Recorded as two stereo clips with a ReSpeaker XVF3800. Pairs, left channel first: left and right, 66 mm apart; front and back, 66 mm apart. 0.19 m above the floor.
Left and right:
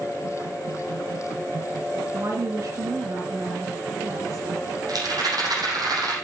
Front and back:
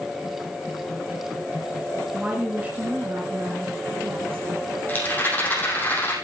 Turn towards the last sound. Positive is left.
turn(degrees=-65)